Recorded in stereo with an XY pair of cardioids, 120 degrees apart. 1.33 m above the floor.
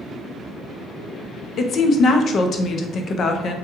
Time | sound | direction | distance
1.6 | a woman speaking | 50° left | 0.5 m